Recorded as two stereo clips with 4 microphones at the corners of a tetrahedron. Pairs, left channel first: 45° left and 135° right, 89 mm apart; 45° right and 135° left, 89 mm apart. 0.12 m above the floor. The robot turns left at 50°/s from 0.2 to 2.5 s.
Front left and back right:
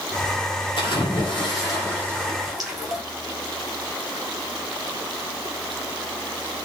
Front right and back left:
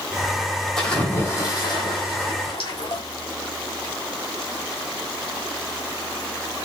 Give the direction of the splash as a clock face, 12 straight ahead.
11 o'clock.